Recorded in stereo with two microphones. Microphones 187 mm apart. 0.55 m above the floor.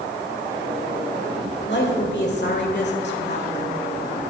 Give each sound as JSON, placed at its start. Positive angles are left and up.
{"t": 1.7, "sound": "a woman speaking", "side_deg": 60, "distance_m": 1.8}